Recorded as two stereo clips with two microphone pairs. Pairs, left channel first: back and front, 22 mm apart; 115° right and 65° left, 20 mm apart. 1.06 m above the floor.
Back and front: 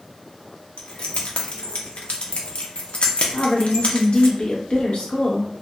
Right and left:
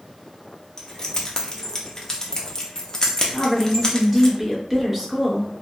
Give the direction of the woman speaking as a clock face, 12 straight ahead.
7 o'clock.